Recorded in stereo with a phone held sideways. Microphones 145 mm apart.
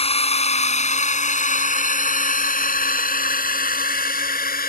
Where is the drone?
45° left (ahead or behind); by 4.7 s 85° left.